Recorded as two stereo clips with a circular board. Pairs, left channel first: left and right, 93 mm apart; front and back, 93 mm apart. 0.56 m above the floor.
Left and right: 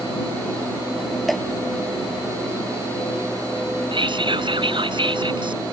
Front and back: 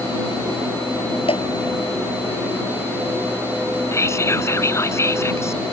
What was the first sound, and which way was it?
Dripping, straight ahead.